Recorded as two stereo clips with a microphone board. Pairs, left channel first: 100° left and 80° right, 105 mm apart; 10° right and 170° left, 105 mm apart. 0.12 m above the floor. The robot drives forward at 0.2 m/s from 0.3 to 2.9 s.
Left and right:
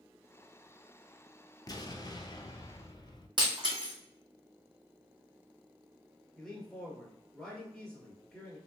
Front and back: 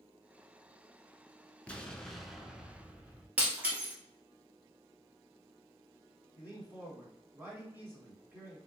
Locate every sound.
1.7 s an explosion: 65° left, 0.6 m; by 3.3 s 100° left, 0.5 m
3.4 s breaking glass: 115° right, 1.5 m
6.4 s a man speaking: straight behind, 1.4 m